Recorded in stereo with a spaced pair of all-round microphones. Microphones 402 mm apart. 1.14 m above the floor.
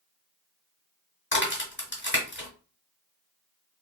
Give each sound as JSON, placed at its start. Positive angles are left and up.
{"t": 1.3, "sound": "a crack", "side_deg": 30, "distance_m": 1.1}